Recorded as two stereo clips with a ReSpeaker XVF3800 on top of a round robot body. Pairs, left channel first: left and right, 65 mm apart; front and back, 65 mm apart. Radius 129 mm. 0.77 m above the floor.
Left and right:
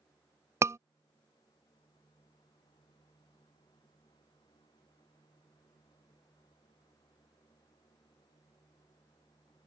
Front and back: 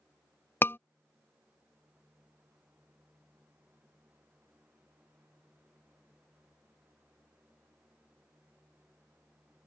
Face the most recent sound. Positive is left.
turn(degrees=-50)